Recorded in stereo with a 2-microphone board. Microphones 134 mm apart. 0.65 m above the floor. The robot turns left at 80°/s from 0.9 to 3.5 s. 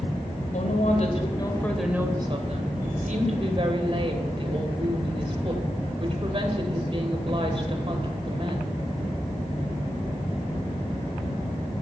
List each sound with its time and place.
0.5 s a woman speaking: 70° left, 2.5 m; by 8.7 s 135° right, 2.5 m